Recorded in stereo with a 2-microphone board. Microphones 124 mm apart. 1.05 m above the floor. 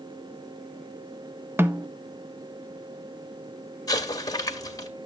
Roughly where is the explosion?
Left.